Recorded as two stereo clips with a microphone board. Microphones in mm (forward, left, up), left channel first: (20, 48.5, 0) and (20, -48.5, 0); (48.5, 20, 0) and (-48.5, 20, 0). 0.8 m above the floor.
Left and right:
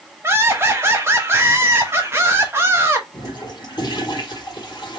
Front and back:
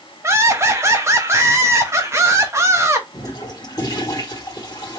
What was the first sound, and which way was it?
Laughter, 140° right.